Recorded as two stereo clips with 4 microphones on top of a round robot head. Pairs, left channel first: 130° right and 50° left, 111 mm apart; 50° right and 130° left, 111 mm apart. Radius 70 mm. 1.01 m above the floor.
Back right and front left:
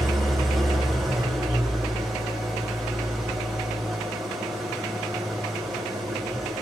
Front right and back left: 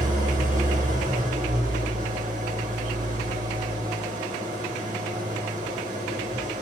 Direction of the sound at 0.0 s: 140° left.